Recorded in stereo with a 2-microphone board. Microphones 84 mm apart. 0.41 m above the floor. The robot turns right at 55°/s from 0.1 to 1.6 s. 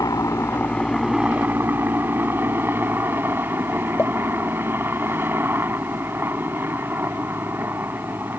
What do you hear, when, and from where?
0.0 s a helicopter: 125° left; by 8.4 s 150° right
4.0 s a pop: 30° left (ahead or behind)